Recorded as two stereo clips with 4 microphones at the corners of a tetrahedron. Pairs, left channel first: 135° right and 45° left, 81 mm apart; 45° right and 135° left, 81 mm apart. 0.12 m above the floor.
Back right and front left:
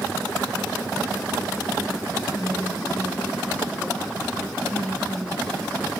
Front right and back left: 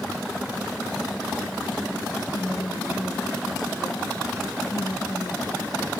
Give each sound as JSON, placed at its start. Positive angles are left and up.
{"t": 2.3, "sound": "a woman speaking", "azimuth_deg": -65, "distance_m": 2.5}